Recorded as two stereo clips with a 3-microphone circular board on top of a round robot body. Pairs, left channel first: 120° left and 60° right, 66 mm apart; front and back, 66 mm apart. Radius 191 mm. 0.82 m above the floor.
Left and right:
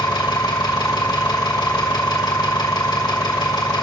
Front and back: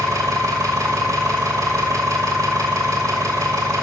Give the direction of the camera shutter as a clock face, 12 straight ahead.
No camera shutter in this recording.